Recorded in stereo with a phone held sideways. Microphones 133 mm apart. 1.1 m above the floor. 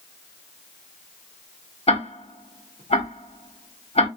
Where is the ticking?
50° left (ahead or behind), 1.0 m.